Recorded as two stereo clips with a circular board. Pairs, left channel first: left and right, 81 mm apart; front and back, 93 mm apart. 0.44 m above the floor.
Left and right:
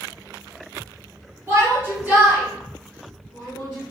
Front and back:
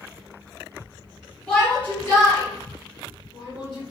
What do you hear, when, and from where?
1.5 s a shout: 70° right, 1.5 m; by 3.9 s 5° left, 2.5 m